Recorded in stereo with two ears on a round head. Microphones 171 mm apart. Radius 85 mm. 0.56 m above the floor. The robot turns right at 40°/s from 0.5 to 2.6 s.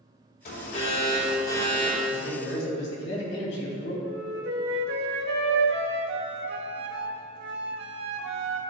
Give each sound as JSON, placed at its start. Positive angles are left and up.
{"t": 0.5, "sound": "an alarm", "azimuth_deg": 115, "distance_m": 2.5}
{"t": 2.1, "sound": "a man speaking", "side_deg": 50, "distance_m": 3.0}
{"t": 4.0, "sound": "a flute", "side_deg": -60, "distance_m": 1.1}